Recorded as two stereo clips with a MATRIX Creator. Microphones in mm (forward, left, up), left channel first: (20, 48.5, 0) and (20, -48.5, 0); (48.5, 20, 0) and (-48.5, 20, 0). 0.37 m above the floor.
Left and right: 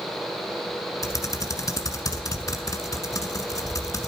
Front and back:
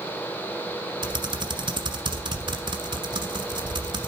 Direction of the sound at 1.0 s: 145° left.